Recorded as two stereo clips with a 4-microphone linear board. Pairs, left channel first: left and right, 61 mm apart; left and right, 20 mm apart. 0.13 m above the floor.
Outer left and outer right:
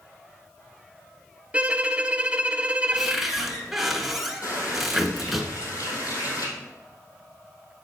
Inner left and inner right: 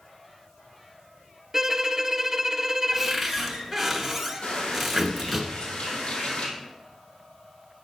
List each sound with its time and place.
1.5 s a violin: 20° right (ahead or behind), 0.6 m
2.9 s a cupboard door: centre (ahead or behind), 1.6 m
4.4 s a running tap: 70° left (ahead or behind), 3 m